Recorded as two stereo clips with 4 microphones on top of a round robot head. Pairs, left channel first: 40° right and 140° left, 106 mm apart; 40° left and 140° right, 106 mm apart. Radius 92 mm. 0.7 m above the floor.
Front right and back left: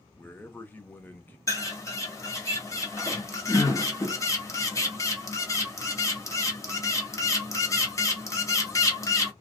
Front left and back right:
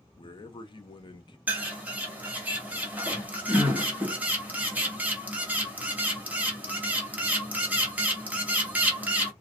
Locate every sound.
0.2 s a man speaking: 25° left, 0.7 m
1.5 s a bird: 75° right, 1.1 m